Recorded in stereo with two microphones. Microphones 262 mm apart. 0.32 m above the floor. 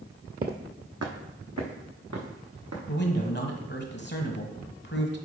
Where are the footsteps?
35° right (ahead or behind), 0.7 m; by 2.8 s 75° right (ahead or behind), 2.5 m.